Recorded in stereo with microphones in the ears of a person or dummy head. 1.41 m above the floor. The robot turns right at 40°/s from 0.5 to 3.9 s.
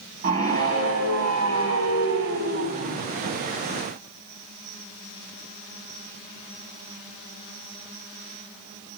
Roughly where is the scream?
Behind right.